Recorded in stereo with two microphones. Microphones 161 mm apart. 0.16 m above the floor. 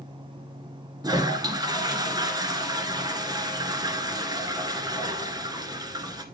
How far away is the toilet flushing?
About 1.4 m.